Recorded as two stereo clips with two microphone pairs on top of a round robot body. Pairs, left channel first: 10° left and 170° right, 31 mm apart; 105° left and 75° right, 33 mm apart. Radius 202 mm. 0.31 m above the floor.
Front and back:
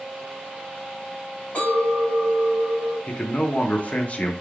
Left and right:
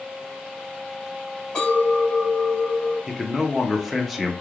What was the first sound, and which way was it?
A clink, 40° left.